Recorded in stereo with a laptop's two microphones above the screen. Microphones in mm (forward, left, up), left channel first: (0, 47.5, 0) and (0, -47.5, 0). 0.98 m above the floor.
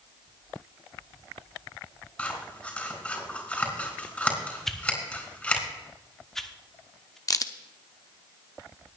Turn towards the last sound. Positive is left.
turn(degrees=40)  # may be behind; listen again after turning